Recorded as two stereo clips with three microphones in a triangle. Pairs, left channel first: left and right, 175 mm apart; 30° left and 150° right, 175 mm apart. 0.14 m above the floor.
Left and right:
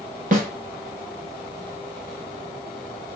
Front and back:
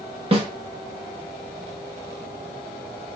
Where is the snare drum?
105° right, 1.2 m.